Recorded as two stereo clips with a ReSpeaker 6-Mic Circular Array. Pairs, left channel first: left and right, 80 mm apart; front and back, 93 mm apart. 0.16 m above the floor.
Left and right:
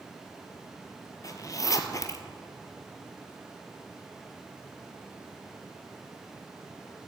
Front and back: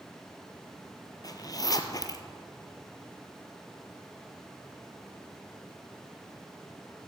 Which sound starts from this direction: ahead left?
A zipper, at 1.2 s.